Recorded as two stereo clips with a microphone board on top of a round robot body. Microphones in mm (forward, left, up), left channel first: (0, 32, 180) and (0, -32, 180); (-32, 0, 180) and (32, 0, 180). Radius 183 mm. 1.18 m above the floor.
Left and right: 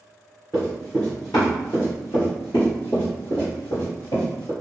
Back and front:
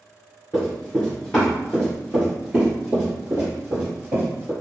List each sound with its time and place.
0.5 s running footsteps: 165° left, 1.2 m; by 4.5 s 60° left, 2 m